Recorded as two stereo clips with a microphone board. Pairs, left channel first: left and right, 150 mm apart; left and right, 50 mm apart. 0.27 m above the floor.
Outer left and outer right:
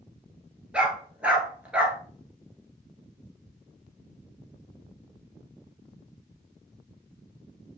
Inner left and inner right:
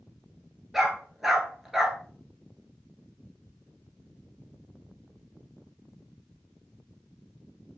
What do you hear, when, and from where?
0.7 s a dog barking: 10° right (ahead or behind), 1.2 m